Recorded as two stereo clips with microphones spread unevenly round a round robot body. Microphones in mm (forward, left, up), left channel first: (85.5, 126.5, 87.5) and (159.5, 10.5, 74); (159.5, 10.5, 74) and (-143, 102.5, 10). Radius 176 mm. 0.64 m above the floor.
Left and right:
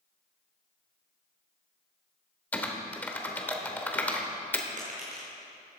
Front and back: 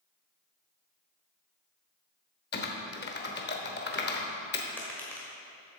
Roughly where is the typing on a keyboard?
Ahead left.